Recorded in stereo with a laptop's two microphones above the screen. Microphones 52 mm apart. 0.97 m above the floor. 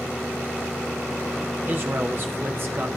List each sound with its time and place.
1.7 s a man speaking: 45° right (ahead or behind), 0.7 m